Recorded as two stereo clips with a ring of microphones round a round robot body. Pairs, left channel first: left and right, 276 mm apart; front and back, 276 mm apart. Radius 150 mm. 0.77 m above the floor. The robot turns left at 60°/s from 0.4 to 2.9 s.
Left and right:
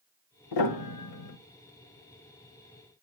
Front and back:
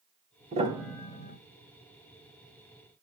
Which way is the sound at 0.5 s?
110° left.